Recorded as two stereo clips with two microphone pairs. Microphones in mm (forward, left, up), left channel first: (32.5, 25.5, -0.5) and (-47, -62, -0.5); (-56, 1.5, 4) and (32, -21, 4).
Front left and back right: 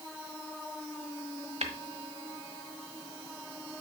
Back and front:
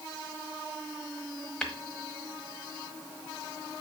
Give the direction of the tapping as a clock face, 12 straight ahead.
4 o'clock.